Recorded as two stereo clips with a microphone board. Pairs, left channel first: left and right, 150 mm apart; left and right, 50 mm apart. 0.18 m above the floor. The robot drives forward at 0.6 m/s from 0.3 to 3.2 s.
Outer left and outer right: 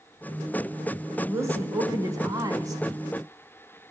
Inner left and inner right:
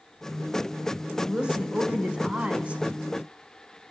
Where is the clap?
No clap in this recording.